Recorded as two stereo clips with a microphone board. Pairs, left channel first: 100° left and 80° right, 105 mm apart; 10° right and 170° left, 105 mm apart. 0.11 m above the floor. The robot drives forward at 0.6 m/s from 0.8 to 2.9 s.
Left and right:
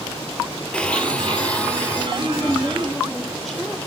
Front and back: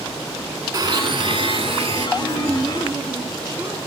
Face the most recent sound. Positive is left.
turn(degrees=-170)